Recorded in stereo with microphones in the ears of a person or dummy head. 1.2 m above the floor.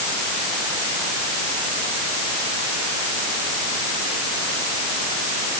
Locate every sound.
Only background noise.